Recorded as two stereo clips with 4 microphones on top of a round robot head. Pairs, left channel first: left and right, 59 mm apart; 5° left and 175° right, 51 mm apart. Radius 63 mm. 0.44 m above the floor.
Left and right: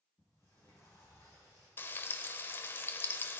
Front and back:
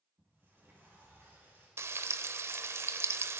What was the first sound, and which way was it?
A sliding door, 135° left.